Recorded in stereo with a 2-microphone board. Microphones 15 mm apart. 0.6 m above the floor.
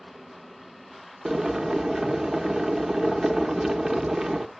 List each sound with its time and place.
1.2 s boiling: 25° right (ahead or behind), 0.8 m